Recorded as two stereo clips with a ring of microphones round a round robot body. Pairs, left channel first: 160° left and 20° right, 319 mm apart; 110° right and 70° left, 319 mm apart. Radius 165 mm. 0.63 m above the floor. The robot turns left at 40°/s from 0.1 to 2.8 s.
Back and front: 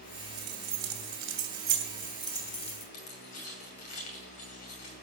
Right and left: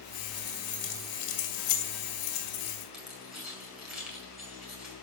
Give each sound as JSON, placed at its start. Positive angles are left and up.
{"t": 0.4, "sound": "keys jangling", "azimuth_deg": -40, "distance_m": 2.5}
{"t": 2.9, "sound": "keys jangling", "azimuth_deg": 155, "distance_m": 5.5}